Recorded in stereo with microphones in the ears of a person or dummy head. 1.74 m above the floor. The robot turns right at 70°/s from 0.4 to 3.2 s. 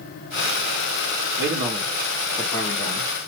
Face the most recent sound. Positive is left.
turn(degrees=70)